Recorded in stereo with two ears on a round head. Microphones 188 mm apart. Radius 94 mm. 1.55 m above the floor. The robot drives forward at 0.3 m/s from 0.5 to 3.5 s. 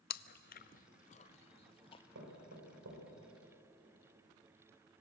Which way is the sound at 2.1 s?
75° right (ahead or behind).